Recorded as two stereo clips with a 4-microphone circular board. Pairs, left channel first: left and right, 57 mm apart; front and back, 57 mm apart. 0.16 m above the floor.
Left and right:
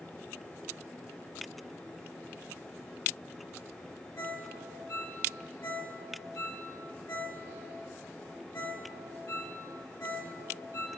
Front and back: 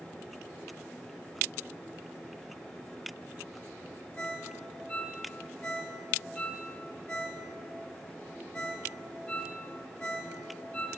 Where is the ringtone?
65° left, 2.5 m.